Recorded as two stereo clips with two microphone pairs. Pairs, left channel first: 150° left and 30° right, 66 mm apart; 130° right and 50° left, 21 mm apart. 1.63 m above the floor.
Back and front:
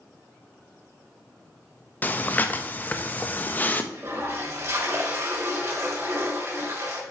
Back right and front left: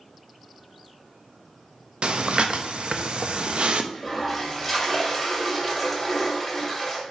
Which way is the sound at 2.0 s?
90° left.